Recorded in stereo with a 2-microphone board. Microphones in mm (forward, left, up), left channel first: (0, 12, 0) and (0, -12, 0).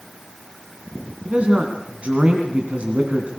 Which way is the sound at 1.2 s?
60° right (ahead or behind).